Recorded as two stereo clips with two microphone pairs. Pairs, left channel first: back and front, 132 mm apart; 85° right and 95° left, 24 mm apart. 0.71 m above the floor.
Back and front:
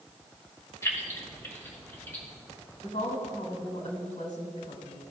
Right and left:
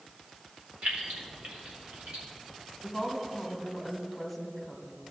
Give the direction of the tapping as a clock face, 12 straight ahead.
No tapping in this recording.